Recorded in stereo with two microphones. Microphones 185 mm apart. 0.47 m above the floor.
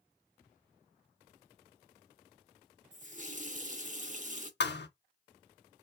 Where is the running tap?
45° right (ahead or behind), 0.6 m.